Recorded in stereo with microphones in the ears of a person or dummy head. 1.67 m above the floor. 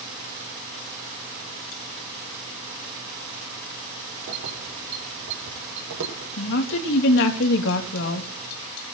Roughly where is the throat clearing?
I don't hear throat clearing.